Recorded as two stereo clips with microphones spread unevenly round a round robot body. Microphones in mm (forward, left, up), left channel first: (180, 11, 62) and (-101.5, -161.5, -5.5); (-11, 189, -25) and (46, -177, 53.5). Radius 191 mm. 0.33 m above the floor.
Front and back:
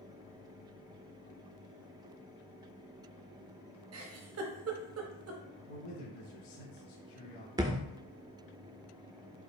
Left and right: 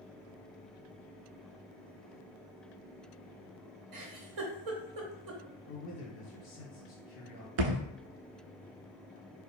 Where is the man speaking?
50° left, 1.8 m.